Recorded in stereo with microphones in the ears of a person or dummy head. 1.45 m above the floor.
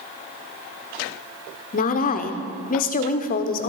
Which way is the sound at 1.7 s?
45° left (ahead or behind).